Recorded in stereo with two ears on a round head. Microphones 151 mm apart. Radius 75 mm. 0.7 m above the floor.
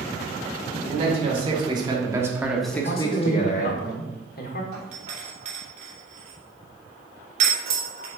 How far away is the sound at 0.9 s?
About 2 m.